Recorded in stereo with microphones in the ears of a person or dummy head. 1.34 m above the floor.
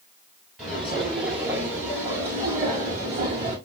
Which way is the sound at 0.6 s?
10° right (ahead or behind).